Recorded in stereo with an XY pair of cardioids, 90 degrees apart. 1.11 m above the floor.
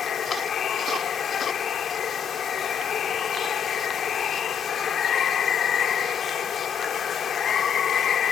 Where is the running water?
60° left.